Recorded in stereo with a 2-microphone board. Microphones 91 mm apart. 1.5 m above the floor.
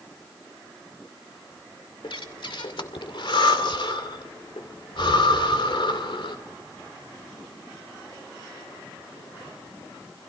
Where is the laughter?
I don't hear laughter.